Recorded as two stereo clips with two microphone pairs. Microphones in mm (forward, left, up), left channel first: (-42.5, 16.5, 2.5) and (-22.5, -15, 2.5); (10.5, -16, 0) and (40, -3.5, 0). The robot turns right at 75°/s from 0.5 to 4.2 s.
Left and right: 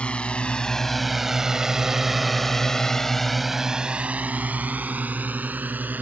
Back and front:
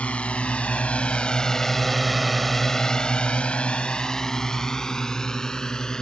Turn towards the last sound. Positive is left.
turn(degrees=-90)